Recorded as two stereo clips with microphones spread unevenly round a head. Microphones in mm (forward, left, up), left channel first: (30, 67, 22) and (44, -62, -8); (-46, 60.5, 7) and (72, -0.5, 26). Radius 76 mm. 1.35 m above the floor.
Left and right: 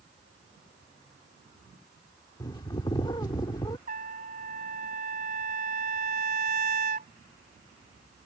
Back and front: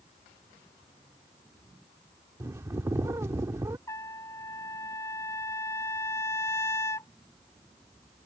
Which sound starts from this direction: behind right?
A trumpet, at 3.9 s.